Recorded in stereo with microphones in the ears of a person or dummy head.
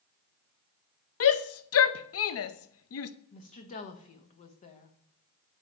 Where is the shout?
70° left (ahead or behind), 0.5 m.